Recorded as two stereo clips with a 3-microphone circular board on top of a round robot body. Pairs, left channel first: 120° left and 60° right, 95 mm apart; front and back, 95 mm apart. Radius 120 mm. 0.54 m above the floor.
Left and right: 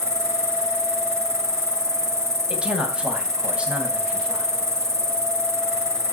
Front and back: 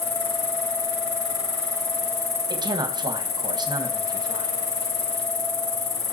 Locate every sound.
0.0 s an insect: straight ahead, 4 m
2.5 s a man speaking: 140° right, 3.5 m